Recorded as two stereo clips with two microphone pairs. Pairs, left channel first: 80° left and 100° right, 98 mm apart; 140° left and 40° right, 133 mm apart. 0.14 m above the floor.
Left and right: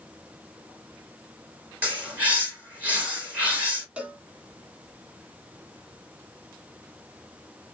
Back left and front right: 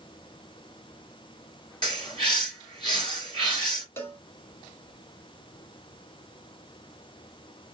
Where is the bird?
170° right, 3 m.